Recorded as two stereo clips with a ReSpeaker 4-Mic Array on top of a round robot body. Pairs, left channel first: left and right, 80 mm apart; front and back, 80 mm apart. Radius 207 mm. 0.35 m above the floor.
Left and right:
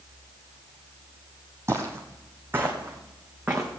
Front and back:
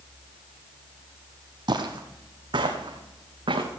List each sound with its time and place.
1.7 s footsteps: 150° right, 0.8 m; by 3.7 s 160° right, 2.0 m